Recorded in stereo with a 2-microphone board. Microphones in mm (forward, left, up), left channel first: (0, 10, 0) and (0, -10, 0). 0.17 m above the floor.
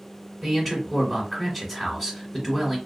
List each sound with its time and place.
0.4 s a man speaking: 15° left (ahead or behind), 1.7 m